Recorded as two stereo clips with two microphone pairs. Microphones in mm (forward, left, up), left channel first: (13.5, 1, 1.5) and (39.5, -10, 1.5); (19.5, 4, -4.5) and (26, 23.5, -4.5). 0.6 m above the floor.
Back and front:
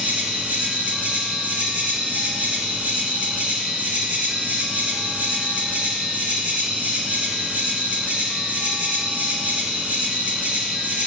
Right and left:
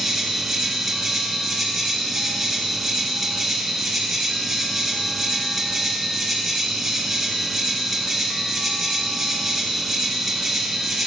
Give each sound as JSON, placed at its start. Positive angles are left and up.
{"t": 0.0, "sound": "an insect", "azimuth_deg": -15, "distance_m": 0.8}